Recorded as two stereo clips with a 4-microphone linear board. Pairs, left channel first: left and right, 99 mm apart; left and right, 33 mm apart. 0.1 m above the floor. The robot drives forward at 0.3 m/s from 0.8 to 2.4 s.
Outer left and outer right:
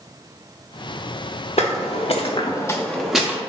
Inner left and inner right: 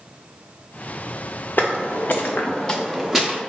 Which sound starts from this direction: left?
Footsteps, at 1.6 s.